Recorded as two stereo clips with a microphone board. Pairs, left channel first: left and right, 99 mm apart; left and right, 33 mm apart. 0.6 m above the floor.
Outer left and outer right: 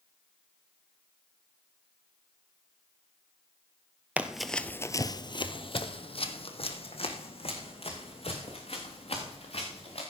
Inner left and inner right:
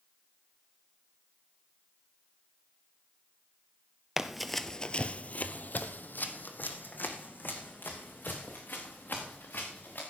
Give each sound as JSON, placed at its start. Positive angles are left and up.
{"t": 4.2, "sound": "running footsteps", "side_deg": -15, "distance_m": 0.8}